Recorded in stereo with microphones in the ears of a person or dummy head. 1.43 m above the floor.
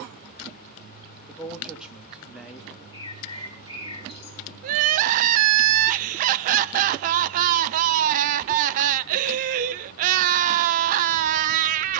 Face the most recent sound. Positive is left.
turn(degrees=-45)  # may be behind; listen again after turning